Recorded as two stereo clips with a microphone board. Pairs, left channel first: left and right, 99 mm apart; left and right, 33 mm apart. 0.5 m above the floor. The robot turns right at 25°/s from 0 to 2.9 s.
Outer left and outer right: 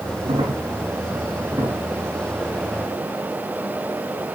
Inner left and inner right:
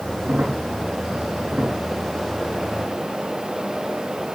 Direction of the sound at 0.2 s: 60° right (ahead or behind).